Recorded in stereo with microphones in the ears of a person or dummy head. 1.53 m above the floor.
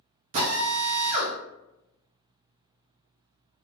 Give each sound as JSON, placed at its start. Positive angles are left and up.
{"t": 0.3, "sound": "a drill", "side_deg": -40, "distance_m": 0.6}